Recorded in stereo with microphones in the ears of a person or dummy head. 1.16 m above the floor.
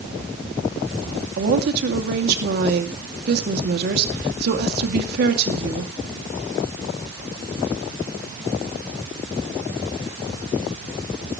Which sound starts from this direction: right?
A woman speaking, at 1.4 s.